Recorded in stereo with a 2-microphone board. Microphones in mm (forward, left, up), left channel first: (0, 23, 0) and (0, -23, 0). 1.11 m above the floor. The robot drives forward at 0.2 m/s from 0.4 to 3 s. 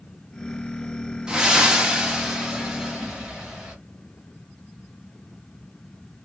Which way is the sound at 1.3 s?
15° right (ahead or behind).